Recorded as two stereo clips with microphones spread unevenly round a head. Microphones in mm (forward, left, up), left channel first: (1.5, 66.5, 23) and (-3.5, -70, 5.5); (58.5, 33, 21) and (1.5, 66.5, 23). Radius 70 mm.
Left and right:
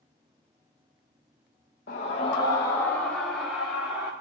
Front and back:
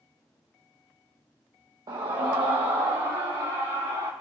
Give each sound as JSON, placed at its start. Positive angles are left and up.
{"t": 1.9, "sound": "a scream", "azimuth_deg": 120, "distance_m": 1.1}